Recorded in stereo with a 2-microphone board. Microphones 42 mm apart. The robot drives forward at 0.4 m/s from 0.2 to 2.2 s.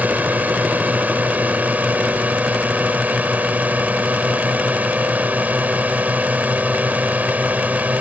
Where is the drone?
45° right (ahead or behind); by 8.0 s 40° right (ahead or behind).